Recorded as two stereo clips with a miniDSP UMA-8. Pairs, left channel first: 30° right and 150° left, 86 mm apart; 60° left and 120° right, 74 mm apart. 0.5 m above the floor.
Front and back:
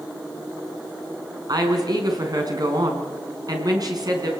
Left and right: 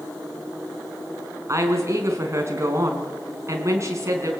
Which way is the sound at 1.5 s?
170° right.